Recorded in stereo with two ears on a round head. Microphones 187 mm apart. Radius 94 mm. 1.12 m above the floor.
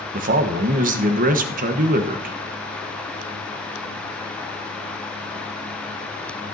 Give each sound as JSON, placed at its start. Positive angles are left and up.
{"t": 0.1, "sound": "a man speaking", "side_deg": -40, "distance_m": 1.2}